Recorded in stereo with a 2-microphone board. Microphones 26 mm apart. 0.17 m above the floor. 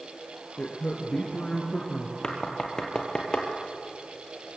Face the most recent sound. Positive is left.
turn(degrees=30)  # may be behind; listen again after turning